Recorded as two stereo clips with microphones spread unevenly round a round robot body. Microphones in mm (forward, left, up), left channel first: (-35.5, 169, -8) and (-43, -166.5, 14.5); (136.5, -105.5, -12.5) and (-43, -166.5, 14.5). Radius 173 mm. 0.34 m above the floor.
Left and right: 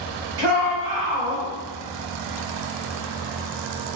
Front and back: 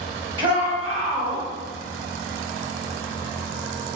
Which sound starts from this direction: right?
A shout, at 0.4 s.